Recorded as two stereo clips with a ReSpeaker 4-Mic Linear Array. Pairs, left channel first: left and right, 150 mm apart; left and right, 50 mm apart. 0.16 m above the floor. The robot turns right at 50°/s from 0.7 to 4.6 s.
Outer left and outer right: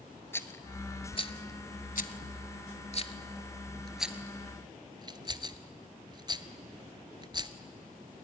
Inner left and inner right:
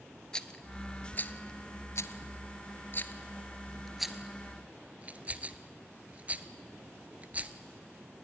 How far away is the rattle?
About 0.7 m.